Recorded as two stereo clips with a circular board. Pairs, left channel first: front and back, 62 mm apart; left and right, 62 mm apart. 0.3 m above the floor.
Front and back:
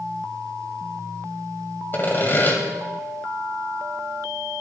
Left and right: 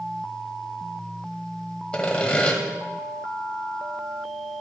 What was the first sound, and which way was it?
Sawing, 30° left.